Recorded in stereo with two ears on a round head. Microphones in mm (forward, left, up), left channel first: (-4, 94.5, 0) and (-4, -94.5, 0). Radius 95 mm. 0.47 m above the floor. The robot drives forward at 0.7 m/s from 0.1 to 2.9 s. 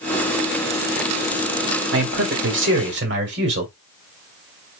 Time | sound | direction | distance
1.9 | a man speaking | 60° right (ahead or behind) | 1.7 m